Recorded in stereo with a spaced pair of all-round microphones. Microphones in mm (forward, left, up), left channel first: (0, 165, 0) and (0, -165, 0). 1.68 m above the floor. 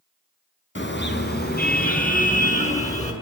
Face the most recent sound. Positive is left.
turn(degrees=20)  # may be behind; listen again after turning